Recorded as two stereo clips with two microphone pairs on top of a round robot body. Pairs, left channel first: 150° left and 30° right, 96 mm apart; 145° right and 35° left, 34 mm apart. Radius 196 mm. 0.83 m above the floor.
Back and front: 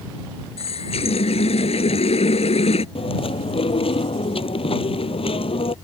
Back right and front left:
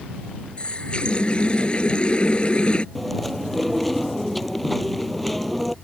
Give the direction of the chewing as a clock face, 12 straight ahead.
8 o'clock.